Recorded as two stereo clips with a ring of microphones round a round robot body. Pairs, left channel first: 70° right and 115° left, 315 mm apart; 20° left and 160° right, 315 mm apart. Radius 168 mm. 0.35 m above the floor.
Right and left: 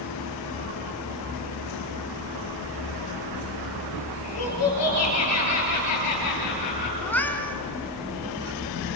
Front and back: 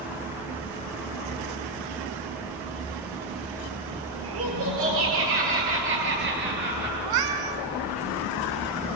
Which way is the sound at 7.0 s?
150° right.